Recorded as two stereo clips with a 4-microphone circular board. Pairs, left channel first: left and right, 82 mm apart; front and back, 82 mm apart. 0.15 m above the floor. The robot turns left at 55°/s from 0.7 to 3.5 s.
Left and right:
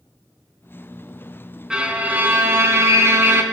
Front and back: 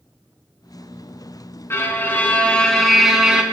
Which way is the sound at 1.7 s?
20° right.